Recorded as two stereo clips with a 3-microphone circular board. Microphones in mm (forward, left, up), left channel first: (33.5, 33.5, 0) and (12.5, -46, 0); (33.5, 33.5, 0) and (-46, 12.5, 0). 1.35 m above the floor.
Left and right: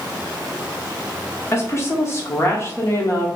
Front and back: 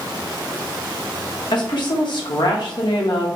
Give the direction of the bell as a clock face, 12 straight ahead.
No bell in this recording.